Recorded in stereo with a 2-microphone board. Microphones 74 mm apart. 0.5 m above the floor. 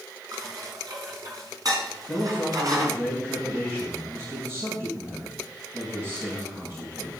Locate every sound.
0.3 s dishes clattering: 55° right (ahead or behind), 3 m
2.1 s a man speaking: 40° right (ahead or behind), 4 m